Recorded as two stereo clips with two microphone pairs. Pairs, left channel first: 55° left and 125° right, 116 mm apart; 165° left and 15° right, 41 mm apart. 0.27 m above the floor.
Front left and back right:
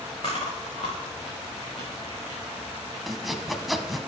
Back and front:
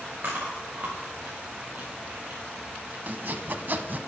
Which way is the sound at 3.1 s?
40° right.